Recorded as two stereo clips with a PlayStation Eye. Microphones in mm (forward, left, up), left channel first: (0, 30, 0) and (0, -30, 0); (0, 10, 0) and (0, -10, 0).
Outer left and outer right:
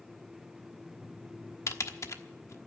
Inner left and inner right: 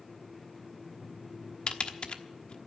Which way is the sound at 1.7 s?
55° left (ahead or behind).